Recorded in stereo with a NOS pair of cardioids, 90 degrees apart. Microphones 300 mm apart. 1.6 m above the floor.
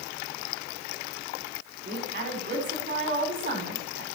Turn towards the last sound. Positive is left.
turn(degrees=-40)